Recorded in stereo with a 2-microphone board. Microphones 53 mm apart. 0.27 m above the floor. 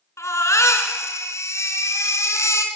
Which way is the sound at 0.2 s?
70° left (ahead or behind).